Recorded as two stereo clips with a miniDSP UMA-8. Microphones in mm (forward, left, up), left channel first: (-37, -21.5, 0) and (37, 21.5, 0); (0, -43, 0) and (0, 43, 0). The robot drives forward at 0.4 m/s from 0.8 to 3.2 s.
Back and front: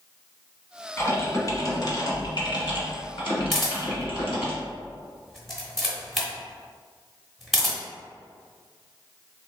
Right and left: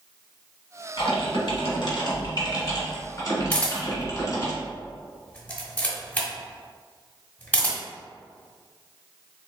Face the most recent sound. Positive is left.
turn(degrees=-65)